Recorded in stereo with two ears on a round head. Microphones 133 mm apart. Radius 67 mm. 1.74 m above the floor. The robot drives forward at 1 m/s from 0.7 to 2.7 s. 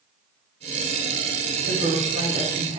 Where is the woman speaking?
85° right, 4 m; by 2.8 s 70° right (ahead or behind), 4.5 m.